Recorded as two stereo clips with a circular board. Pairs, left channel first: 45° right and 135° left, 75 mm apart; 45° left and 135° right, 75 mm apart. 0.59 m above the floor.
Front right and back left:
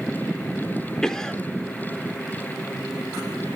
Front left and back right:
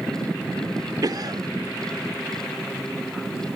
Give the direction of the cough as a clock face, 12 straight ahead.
4 o'clock.